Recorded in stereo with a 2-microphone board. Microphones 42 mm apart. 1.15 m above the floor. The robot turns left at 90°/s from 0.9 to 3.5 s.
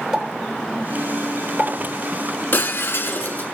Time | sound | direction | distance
0.1 | a pop | 10° right (ahead or behind) | 3.5 m
2.5 | breaking glass | 120° left | 1.5 m